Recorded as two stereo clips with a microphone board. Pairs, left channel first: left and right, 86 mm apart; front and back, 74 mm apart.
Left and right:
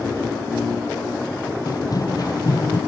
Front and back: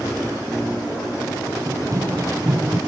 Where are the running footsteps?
135° left.